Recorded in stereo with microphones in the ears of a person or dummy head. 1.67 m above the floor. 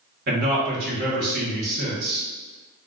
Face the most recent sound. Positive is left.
turn(degrees=-55)  # may be behind; listen again after turning